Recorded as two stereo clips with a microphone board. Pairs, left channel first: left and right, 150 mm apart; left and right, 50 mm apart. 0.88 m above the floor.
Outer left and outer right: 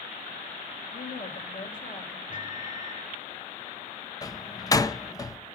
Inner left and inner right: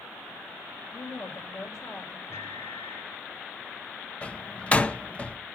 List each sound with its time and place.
0.9 s a woman speaking: 75° left (ahead or behind), 3.5 m
2.3 s a microwave: 60° left (ahead or behind), 2 m
4.2 s a door slam: 25° left (ahead or behind), 0.7 m